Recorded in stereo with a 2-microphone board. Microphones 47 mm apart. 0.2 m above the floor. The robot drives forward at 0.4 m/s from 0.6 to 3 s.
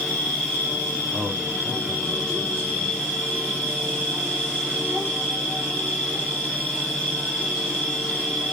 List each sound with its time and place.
0.0 s an insect: 25° left (ahead or behind), 1.5 m; by 8.5 s 15° left (ahead or behind), 2.5 m
1.1 s a man speaking: 25° right (ahead or behind), 3 m; by 2.9 s 30° right (ahead or behind), 2.5 m